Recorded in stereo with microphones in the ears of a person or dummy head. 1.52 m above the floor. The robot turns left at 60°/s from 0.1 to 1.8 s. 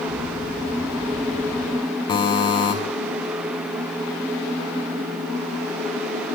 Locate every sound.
2.1 s a buzzer: 25° left (ahead or behind), 0.8 m